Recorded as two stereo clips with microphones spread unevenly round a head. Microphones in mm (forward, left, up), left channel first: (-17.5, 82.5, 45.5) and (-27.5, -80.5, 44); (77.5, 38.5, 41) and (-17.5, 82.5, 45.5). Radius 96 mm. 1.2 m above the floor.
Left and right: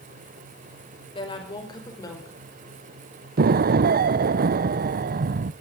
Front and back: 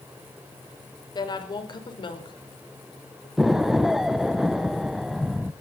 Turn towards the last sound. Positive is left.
turn(degrees=-115)